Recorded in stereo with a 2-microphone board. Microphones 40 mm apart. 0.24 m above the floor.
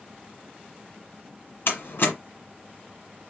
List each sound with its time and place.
1.7 s a door slam: 60° left (ahead or behind), 1.7 m